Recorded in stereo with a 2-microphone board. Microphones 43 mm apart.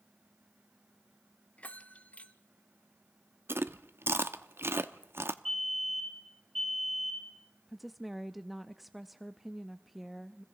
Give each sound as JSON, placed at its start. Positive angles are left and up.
{"t": 1.6, "sound": "a bell", "side_deg": 35, "distance_m": 0.9}
{"t": 3.5, "sound": "chewing", "side_deg": -65, "distance_m": 0.7}
{"t": 5.5, "sound": "a fire alarm", "side_deg": 5, "distance_m": 6.0}
{"t": 7.7, "sound": "a woman speaking", "side_deg": -5, "distance_m": 0.6}